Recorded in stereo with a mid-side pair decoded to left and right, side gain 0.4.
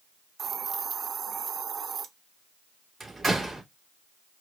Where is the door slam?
30° right, 2.5 m.